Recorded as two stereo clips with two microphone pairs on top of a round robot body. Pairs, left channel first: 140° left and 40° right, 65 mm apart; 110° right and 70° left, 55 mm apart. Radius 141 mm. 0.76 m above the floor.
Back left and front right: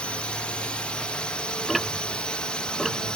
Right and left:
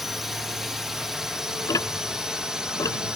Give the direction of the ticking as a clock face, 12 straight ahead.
4 o'clock.